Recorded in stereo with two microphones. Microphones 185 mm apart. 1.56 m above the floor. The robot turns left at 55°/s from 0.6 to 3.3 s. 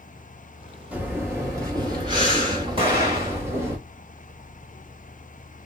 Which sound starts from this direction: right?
An explosion, at 2.8 s.